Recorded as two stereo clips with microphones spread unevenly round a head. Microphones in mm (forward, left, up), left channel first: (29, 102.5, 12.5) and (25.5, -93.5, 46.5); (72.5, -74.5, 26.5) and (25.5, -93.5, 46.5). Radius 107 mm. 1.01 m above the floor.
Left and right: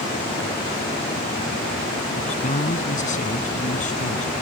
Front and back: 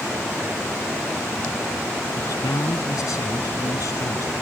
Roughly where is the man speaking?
Ahead left.